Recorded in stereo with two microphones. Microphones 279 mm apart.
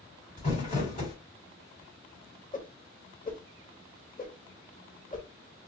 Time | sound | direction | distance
0.4 | crumpling | 30° left (ahead or behind) | 2.5 m
2.5 | a whoosh | 30° left (ahead or behind) | 0.8 m